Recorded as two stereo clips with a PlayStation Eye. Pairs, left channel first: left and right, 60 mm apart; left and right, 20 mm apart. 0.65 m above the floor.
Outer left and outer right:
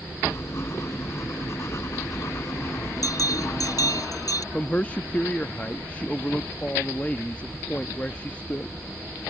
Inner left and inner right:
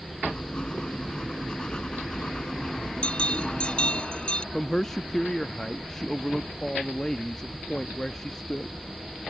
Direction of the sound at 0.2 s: 50° left (ahead or behind).